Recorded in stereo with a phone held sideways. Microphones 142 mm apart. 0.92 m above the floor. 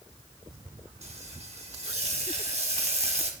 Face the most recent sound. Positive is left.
turn(degrees=-50)  # may be behind; listen again after turning